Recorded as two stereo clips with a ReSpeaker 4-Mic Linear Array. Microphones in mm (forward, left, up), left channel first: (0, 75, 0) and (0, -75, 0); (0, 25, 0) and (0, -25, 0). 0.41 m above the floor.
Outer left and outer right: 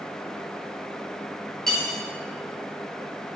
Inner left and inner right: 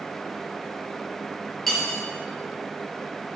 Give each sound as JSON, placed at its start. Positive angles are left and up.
{"t": 1.7, "sound": "cutlery clinking", "side_deg": 5, "distance_m": 4.5}